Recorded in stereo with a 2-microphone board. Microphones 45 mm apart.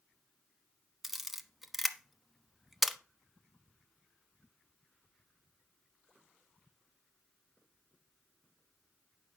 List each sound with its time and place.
1.0 s a camera shutter: 5° right (ahead or behind), 1.0 m